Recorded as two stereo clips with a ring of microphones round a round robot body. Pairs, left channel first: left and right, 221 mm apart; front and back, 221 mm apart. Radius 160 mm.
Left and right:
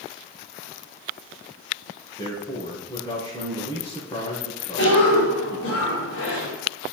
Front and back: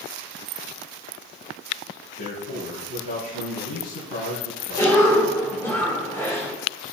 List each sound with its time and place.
2.2 s a man speaking: 25° left, 5.5 m
4.8 s a cough: 75° left, 2.5 m